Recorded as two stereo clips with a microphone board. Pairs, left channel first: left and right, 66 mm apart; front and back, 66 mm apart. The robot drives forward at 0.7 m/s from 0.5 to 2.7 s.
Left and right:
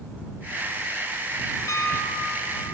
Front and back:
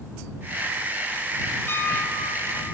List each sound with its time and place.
1.7 s a piano: 50° left, 3 m; by 2.8 s 65° left, 2.5 m